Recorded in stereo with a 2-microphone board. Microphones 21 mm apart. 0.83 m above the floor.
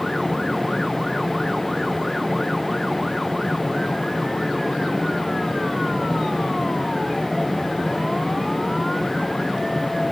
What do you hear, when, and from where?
Only background noise.